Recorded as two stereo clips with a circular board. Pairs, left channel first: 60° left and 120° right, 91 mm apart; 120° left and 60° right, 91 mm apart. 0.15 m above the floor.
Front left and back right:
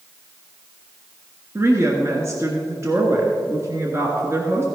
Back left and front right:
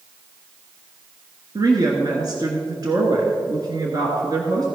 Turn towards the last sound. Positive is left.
turn(degrees=-75)